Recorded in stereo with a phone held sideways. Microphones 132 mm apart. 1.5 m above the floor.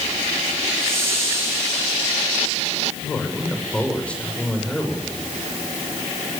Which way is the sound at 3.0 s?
10° left (ahead or behind).